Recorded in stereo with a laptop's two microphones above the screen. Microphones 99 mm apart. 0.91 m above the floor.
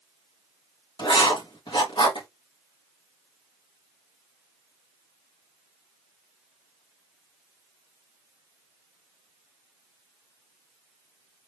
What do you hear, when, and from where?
1.0 s writing: 50° left (ahead or behind), 1.4 m